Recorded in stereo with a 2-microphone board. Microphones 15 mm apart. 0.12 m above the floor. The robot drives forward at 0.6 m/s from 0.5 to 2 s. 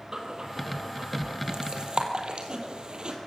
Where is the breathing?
50° right (ahead or behind), 3.5 m; by 3.2 s 60° right (ahead or behind), 3.5 m.